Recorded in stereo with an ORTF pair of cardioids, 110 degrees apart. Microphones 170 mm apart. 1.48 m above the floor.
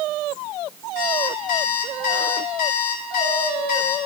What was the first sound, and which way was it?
An alarm clock, 65° left.